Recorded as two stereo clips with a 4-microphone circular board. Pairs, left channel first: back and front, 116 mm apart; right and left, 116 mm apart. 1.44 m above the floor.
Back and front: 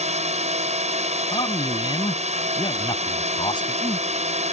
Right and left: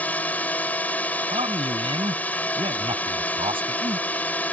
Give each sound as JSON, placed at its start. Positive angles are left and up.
{"t": 0.0, "sound": "a drone", "azimuth_deg": -15}
{"t": 1.3, "sound": "a man speaking", "azimuth_deg": 130}